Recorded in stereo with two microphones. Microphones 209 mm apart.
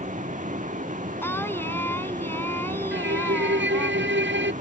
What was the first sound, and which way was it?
A vehicle, 35° right (ahead or behind).